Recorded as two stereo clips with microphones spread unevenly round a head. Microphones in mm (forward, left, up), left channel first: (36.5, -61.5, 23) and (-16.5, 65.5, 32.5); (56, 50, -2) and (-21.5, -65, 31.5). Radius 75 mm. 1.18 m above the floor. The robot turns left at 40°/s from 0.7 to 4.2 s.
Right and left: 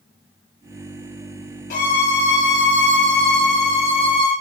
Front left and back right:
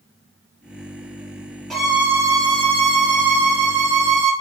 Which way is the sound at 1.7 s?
30° right.